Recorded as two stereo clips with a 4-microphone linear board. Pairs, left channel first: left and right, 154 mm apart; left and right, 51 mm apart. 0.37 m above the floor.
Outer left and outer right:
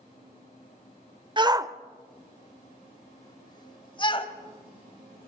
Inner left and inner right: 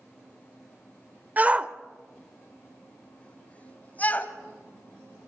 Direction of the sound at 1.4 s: 30° right (ahead or behind).